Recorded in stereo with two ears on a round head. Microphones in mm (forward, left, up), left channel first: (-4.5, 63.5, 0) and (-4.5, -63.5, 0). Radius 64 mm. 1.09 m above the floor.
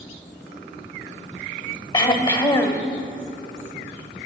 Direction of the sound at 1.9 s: 35° left (ahead or behind).